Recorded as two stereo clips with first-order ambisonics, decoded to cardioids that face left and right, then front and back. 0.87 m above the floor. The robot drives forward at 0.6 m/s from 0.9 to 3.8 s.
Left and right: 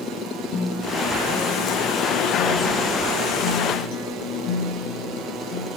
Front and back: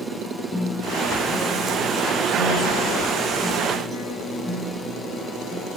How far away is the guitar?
About 6 m.